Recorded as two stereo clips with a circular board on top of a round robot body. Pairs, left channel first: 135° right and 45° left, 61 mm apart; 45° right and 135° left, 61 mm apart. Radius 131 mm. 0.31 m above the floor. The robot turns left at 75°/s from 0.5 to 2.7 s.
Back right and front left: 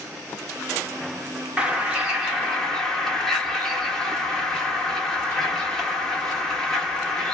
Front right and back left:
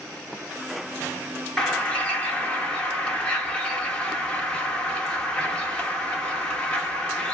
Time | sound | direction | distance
1.6 | a bird | 10° left | 1.5 m